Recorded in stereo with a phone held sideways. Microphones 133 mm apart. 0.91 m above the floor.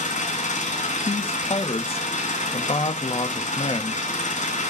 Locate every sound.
0.0 s an engine running: 80° left, 3 m
1.1 s a man speaking: 50° left (ahead or behind), 1.2 m